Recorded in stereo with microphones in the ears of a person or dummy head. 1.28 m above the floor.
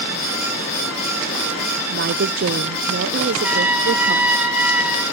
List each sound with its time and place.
1.9 s a woman speaking: 50° right (ahead or behind), 0.8 m
3.4 s a trumpet: 5° right (ahead or behind), 5.5 m